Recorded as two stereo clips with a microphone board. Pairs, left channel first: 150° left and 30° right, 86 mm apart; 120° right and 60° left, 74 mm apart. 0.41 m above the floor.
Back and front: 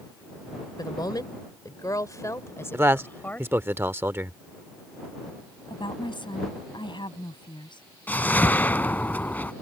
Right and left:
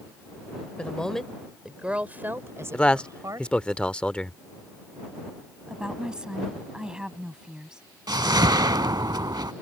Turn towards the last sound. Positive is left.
turn(degrees=80)